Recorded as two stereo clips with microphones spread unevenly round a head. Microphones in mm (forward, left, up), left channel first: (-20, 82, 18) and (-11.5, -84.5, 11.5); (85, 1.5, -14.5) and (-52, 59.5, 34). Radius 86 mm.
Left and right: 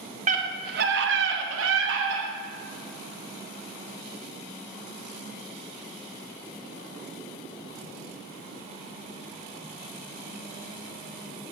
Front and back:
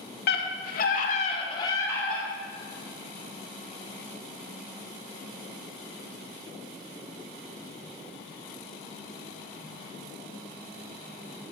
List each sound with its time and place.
0.3 s a scream: 40° right, 1.0 m; by 2.3 s 110° right, 1.0 m